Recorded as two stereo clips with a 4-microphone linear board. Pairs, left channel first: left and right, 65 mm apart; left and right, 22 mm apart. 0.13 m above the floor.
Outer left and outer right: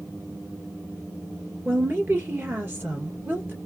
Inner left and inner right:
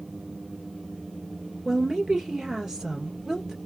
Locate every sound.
1.6 s a woman speaking: 30° right (ahead or behind), 1.9 m